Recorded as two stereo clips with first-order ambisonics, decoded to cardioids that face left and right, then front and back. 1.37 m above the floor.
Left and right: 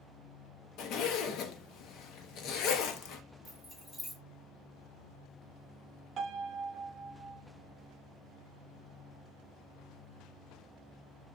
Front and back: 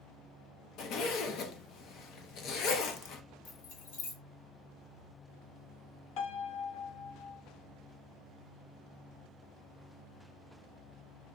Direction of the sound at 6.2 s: 30° right.